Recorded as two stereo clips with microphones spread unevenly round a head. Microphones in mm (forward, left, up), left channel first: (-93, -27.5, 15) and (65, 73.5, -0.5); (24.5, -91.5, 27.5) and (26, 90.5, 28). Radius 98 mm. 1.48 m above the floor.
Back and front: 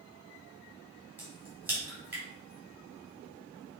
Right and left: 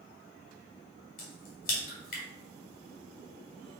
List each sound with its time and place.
1.2 s a crack: 50° right, 2.5 m